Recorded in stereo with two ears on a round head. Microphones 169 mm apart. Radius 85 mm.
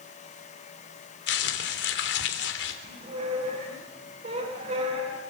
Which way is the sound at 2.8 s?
40° right (ahead or behind).